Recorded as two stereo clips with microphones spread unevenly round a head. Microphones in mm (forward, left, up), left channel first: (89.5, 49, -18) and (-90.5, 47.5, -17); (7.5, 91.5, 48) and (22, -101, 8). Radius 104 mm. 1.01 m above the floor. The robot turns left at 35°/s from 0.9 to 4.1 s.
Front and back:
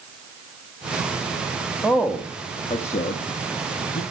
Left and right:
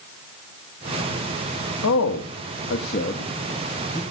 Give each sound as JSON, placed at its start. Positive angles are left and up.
{"t": 1.8, "sound": "a man speaking", "azimuth_deg": 90, "distance_m": 1.1}